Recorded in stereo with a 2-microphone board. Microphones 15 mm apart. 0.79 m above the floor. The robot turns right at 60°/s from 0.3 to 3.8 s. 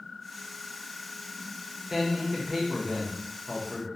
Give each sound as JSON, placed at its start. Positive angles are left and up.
{"t": 1.9, "sound": "a man speaking", "side_deg": -20, "distance_m": 0.6}